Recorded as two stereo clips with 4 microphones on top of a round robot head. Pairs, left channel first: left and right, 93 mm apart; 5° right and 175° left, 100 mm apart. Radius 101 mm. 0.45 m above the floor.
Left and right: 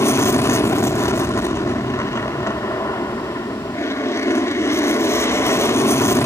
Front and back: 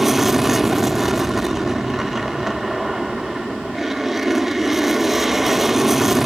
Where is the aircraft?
90° left.